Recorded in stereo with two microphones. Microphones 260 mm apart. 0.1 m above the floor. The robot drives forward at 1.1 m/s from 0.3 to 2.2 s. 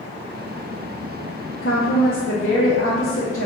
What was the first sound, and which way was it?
A woman speaking, 50° left (ahead or behind).